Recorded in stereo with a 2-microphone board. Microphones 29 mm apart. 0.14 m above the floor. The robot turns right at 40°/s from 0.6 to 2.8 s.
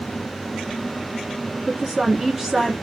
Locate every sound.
1.7 s a woman speaking: 20° right (ahead or behind), 1.3 m; by 2.7 s 5° right (ahead or behind), 1.3 m